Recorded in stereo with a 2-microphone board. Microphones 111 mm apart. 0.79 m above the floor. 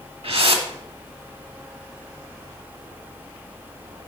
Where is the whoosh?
65° right (ahead or behind), 1.0 m.